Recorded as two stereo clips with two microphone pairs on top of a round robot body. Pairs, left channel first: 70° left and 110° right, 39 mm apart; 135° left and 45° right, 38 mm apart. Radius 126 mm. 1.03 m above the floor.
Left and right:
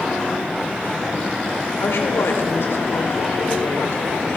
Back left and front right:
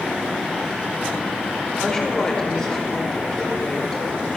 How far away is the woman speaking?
About 4.5 m.